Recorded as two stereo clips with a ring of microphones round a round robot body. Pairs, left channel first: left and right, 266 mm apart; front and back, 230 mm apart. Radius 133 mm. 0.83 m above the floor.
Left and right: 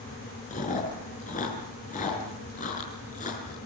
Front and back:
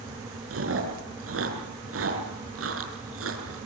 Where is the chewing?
155° left, 6 m.